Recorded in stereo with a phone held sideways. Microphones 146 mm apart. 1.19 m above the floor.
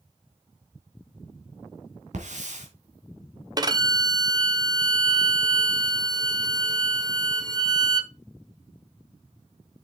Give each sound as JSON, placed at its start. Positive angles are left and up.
{"t": 2.1, "sound": "a hiss", "side_deg": -65, "distance_m": 3.0}
{"t": 3.6, "sound": "a violin", "side_deg": -30, "distance_m": 0.8}